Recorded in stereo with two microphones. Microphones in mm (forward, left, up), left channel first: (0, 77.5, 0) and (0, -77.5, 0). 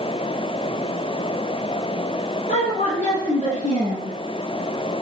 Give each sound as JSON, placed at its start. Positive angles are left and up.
{"t": 2.5, "sound": "a woman speaking", "side_deg": 60, "distance_m": 7.0}